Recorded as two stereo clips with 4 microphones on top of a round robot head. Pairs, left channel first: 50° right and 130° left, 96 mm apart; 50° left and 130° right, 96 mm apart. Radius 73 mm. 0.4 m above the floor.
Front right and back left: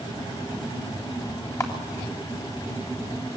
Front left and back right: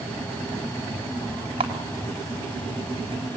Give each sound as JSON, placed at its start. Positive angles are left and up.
{"t": 1.6, "sound": "a camera shutter", "azimuth_deg": -105, "distance_m": 3.5}